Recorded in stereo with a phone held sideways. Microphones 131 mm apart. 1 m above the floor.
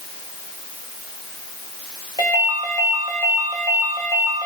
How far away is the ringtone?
About 3.5 m.